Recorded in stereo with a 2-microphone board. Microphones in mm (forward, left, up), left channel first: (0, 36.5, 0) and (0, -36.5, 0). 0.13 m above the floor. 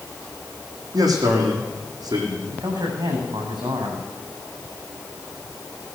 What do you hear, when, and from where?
0.9 s a man speaking: 65° right (ahead or behind), 5 m
2.5 s a man speaking: 80° right, 6 m